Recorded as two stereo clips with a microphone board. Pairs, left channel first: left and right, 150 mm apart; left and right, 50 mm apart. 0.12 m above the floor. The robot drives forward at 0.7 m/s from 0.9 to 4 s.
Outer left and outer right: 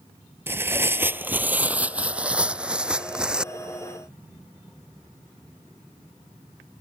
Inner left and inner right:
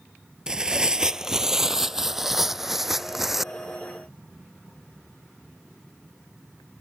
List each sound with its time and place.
0.5 s tearing paper: 15° right (ahead or behind); by 3.5 s 5° right (ahead or behind)